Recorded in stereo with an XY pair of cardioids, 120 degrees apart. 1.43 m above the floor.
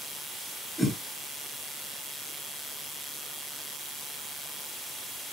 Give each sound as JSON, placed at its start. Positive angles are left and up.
{"t": 0.8, "sound": "a whoosh", "azimuth_deg": 0, "distance_m": 3.5}